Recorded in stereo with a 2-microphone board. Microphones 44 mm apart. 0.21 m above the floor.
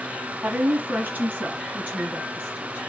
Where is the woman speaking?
40° right (ahead or behind), 1.2 m; by 2.8 s 30° right (ahead or behind), 2.5 m.